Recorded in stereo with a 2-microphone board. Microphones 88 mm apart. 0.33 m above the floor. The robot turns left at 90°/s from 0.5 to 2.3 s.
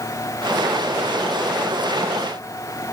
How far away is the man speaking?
No man speaking in this recording.